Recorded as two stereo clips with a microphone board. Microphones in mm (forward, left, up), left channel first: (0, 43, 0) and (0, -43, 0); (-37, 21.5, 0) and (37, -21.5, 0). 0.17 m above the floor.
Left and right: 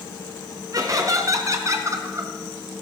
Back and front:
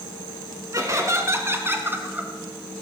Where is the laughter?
65° right, 2.5 m; by 2.8 s 95° right, 1.8 m.